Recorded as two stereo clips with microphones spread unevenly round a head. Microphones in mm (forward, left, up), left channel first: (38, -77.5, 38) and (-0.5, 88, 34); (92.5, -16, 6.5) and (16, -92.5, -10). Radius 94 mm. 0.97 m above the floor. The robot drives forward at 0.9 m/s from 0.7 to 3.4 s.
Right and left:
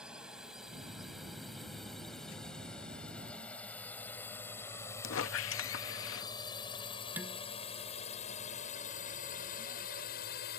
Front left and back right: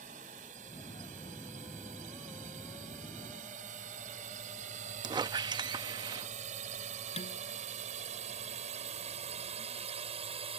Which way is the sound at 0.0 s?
170° right.